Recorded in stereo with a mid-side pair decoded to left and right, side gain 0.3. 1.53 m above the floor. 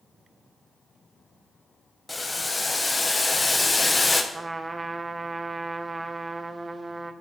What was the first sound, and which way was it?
Boiling, 30° left.